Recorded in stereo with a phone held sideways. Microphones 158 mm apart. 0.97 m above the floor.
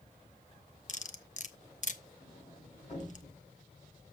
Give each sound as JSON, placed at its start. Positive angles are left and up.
{"t": 0.9, "sound": "cutlery clinking", "side_deg": 50, "distance_m": 0.8}
{"t": 2.2, "sound": "a sliding door", "side_deg": 45, "distance_m": 5.5}